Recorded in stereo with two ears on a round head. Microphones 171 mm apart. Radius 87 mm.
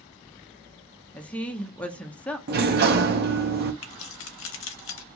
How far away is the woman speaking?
About 0.6 m.